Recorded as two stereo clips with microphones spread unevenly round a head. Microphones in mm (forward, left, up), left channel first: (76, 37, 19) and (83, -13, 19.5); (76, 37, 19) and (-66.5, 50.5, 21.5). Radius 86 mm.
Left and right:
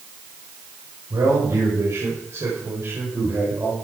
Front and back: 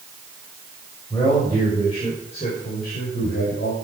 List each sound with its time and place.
1.1 s a man speaking: 80° right, 5.5 m; by 3.7 s 40° right, 5.5 m